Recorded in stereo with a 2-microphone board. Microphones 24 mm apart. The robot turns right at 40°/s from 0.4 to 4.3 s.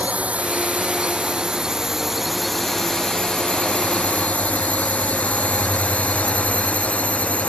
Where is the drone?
85° right; by 7.5 s 85° left.